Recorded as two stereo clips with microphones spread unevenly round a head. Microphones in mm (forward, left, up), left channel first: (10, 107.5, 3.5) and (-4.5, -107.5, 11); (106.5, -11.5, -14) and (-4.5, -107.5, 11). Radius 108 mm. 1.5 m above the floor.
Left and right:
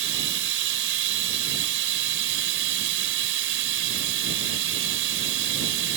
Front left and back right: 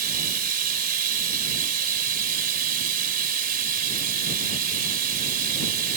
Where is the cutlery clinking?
No cutlery clinking in this recording.